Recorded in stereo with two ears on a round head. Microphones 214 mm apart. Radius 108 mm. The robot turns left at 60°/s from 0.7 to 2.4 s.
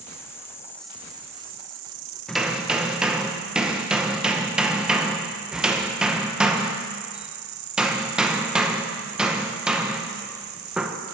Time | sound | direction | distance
0.0 | an insect | 10° left | 0.8 m
2.3 | hammering | 5° left (ahead or behind) | 0.8 m